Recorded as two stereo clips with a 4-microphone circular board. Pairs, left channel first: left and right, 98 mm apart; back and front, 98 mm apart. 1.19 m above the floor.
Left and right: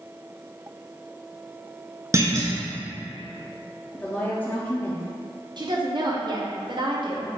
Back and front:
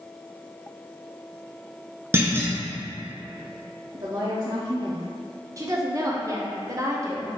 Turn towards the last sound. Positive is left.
turn(degrees=-55)